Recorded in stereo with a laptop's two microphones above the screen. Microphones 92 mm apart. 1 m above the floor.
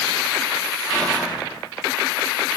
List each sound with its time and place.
0.8 s whispering: centre (ahead or behind), 2.5 m